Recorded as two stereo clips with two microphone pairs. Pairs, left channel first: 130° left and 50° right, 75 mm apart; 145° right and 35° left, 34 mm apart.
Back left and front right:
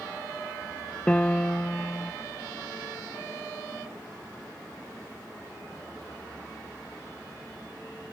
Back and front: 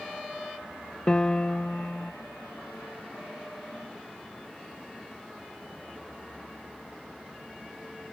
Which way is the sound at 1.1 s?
175° right.